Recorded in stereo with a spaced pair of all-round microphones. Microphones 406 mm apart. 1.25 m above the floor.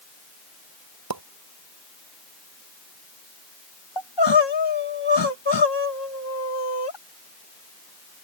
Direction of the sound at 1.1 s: 60° right (ahead or behind).